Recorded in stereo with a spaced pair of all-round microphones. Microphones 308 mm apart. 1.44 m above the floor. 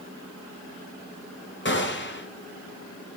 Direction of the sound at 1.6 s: 40° left (ahead or behind).